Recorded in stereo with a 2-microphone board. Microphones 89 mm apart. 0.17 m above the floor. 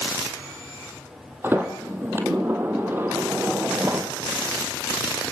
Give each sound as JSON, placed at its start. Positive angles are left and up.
{"t": 1.4, "sound": "a sliding door", "side_deg": -25, "distance_m": 3.0}